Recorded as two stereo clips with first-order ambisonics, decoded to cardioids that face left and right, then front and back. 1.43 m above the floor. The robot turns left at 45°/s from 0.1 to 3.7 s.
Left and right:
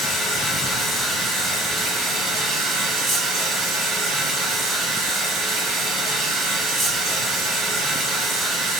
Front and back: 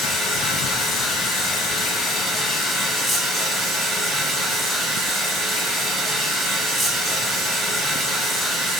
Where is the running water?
25° left, 1.3 m; by 8.8 s 135° right, 1.3 m.